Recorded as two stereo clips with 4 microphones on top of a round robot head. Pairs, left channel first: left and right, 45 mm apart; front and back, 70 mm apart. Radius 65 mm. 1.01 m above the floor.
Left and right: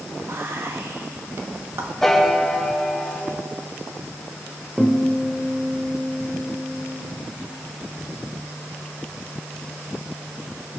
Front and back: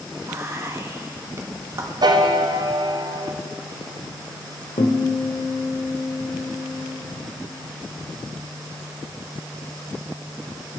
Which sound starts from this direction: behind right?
Whispering, at 0.3 s.